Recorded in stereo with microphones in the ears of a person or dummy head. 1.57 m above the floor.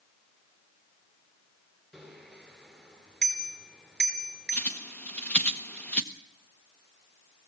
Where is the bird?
10° left (ahead or behind), 1.2 m.